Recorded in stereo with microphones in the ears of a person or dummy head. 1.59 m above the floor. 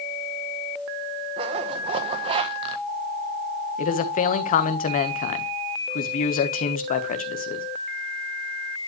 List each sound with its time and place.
1.4 s a zipper: 30° right (ahead or behind), 0.8 m
3.8 s a man speaking: 45° left (ahead or behind), 1.2 m